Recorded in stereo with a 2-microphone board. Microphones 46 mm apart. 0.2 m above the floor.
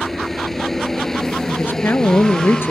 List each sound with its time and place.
0.0 s a helicopter: 5° left (ahead or behind); by 2.7 s 15° left (ahead or behind)
1.5 s a woman speaking: 55° left (ahead or behind)